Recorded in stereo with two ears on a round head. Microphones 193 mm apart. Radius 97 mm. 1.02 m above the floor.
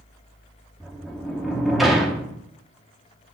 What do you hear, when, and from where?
0.8 s a sliding door: centre (ahead or behind), 1.0 m